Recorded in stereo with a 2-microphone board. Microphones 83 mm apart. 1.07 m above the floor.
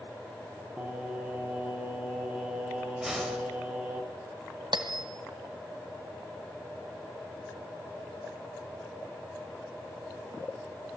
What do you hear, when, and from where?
0.8 s singing: 15° right (ahead or behind), 3 m
3.0 s a whoosh: 5° right (ahead or behind), 4 m
4.7 s a bell: 70° right (ahead or behind), 1.9 m